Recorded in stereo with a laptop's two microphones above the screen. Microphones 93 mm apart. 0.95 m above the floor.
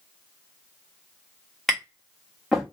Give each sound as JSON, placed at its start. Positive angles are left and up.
{"t": 1.7, "sound": "tapping", "side_deg": 0, "distance_m": 1.2}